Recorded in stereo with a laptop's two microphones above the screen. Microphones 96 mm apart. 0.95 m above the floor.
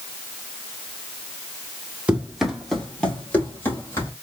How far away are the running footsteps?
About 1.2 m.